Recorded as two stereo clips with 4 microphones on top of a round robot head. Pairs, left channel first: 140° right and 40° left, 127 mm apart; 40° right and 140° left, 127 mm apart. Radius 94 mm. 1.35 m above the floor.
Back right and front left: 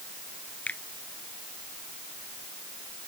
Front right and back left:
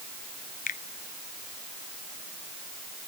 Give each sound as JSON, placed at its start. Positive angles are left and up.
{"t": 0.7, "sound": "a finger snap", "azimuth_deg": -60}